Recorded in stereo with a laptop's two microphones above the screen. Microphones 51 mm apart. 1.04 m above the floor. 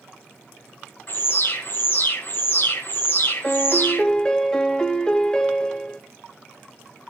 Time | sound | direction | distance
1.1 | an alarm | 45° left (ahead or behind) | 1.6 m
3.4 | a piano | 15° left (ahead or behind) | 1.1 m